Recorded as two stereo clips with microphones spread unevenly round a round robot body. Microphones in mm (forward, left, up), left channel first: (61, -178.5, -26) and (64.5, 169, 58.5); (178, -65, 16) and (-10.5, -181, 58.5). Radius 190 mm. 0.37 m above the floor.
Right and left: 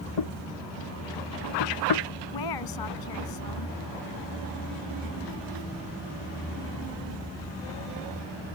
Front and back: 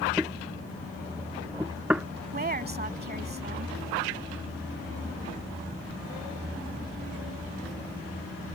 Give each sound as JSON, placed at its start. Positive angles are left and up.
{"t": 0.2, "sound": "knocking", "azimuth_deg": -65}
{"t": 2.3, "sound": "a woman speaking", "azimuth_deg": -100}